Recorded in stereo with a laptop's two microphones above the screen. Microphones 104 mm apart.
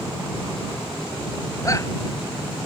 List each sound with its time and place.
1.6 s a shout: 30° left (ahead or behind)